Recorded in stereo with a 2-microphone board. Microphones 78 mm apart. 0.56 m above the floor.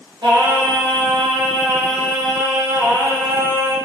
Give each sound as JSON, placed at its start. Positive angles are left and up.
{"t": 0.2, "sound": "singing", "side_deg": -80, "distance_m": 0.8}